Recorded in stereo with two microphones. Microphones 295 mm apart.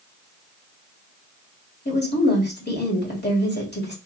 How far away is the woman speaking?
About 2 m.